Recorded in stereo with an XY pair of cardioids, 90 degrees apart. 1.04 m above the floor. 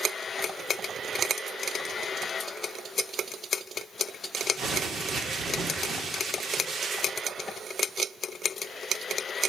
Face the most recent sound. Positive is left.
turn(degrees=-65)